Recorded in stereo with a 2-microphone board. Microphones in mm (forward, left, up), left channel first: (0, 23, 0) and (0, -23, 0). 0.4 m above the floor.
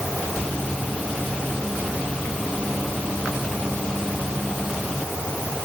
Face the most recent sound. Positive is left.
No sound to turn to.